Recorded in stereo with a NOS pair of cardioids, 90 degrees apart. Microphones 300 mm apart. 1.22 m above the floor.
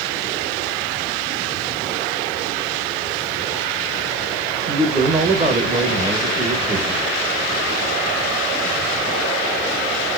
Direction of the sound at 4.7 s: 25° right.